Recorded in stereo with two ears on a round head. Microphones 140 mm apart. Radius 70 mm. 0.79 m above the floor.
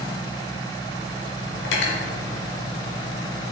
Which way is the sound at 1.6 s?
80° left.